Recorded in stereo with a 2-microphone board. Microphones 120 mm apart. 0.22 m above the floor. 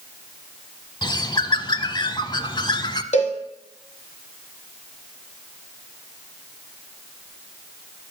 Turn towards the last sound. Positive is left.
turn(degrees=75)  # may be behind; listen again after turning